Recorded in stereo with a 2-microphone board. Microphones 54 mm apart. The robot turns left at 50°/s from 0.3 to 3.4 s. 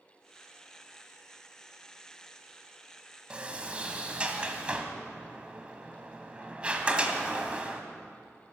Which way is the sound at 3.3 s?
20° right (ahead or behind).